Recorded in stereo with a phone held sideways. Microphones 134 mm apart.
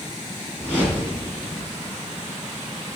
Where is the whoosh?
10° left (ahead or behind), 4 m.